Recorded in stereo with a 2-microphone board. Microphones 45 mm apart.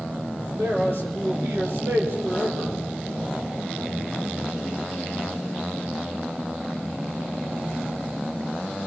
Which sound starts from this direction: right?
A man speaking, at 0.6 s.